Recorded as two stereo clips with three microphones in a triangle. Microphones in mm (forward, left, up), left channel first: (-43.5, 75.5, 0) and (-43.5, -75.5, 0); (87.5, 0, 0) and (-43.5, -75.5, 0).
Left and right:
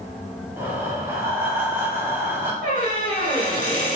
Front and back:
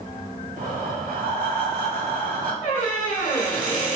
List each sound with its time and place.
0.6 s breathing: 165° right, 1.1 m
2.6 s a squeak: 60° left, 1.3 m